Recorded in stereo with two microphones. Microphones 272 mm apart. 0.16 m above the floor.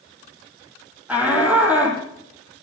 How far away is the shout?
About 5 m.